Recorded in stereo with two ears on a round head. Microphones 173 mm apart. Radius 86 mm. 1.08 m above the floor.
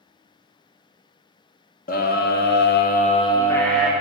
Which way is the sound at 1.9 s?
45° left (ahead or behind).